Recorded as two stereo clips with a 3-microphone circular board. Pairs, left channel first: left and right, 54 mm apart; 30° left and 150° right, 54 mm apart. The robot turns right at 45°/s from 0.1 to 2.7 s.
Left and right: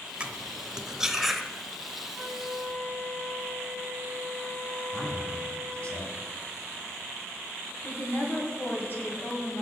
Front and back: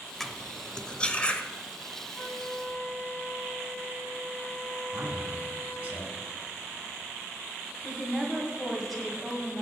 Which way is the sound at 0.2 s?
55° right.